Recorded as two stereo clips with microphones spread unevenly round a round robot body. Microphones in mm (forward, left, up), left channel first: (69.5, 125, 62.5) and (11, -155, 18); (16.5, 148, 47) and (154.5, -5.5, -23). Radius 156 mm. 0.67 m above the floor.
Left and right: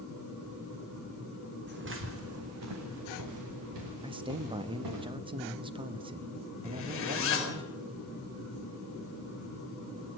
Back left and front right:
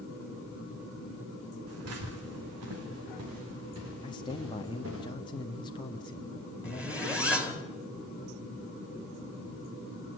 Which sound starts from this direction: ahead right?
Footsteps, at 1.7 s.